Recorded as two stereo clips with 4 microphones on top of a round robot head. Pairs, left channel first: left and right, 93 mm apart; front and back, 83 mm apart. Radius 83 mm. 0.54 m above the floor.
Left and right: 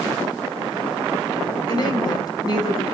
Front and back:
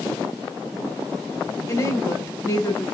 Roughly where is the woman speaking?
Ahead left.